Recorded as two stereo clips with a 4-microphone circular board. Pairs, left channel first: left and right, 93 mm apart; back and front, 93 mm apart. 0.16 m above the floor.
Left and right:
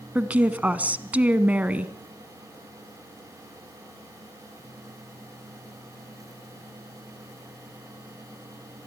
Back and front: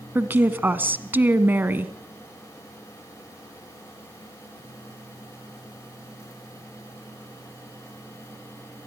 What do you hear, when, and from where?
0.1 s a woman speaking: 35° right, 1.3 m